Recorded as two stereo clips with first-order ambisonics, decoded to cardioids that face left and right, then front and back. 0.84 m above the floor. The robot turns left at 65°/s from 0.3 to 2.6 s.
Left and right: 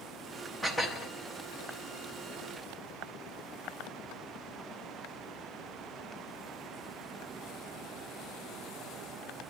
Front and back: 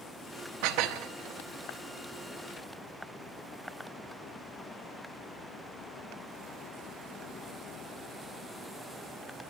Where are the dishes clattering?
Straight behind, 0.8 m; by 1.1 s 145° left, 0.8 m.